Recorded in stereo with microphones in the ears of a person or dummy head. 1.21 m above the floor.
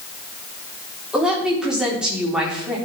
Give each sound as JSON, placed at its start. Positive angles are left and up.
{"t": 1.1, "sound": "a woman speaking", "side_deg": -5, "distance_m": 4.0}